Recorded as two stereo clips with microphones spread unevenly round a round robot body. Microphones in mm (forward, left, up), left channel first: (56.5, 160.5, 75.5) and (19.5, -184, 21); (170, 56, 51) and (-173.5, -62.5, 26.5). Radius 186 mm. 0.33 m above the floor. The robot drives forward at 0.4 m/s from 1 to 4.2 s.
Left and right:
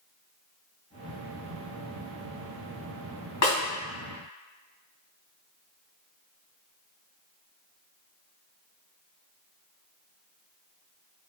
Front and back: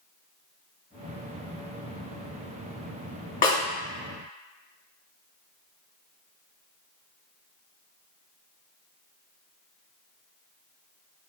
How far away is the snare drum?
About 1.6 m.